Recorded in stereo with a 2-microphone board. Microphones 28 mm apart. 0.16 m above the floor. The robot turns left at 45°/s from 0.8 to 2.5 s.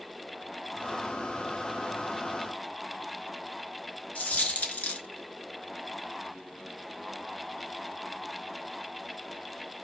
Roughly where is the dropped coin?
Left.